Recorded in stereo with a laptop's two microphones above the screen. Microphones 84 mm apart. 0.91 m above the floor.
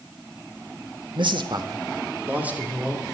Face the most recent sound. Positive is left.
turn(degrees=-5)  # may be behind; listen again after turning